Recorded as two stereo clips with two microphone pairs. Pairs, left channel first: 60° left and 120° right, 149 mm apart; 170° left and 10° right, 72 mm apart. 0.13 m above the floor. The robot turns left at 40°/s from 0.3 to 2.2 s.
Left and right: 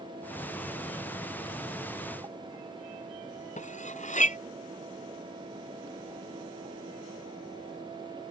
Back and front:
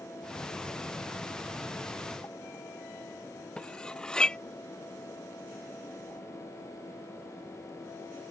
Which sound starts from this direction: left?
Cutlery clinking, at 3.6 s.